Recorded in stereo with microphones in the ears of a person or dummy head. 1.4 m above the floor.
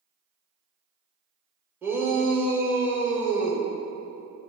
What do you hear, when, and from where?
1.8 s a shout: 10° right (ahead or behind), 1.3 m